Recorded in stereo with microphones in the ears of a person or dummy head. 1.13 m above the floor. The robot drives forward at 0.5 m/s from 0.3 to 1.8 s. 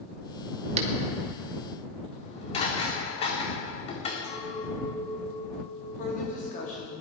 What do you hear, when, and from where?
0.8 s a finger snap: 40° right (ahead or behind), 1.9 m
2.1 s dishes clattering: 35° left (ahead or behind), 1.9 m
4.2 s a clink: 60° left (ahead or behind), 4 m
6.0 s a woman speaking: 45° left (ahead or behind), 3 m